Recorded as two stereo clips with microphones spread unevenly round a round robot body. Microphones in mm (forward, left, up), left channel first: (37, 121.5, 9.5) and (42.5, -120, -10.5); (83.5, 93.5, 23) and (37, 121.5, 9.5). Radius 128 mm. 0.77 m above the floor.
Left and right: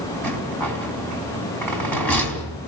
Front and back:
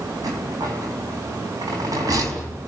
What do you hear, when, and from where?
0.2 s a rattle: 175° left, 4.5 m